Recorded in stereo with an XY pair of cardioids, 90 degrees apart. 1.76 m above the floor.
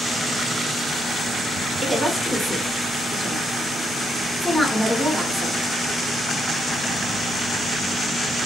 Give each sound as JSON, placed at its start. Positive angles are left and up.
{"t": 1.8, "sound": "a woman speaking", "azimuth_deg": 15, "distance_m": 1.2}